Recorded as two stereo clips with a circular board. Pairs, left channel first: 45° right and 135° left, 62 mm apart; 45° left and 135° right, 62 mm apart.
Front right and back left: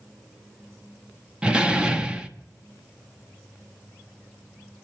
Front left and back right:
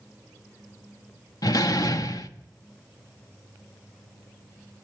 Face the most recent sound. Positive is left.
turn(degrees=60)